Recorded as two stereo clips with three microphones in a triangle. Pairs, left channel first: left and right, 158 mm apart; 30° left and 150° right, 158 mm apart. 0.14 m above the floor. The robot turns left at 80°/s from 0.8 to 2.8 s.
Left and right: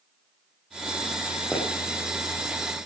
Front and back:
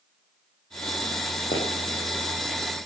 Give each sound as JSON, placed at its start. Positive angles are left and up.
{"t": 1.5, "sound": "a pop", "azimuth_deg": 5, "distance_m": 6.5}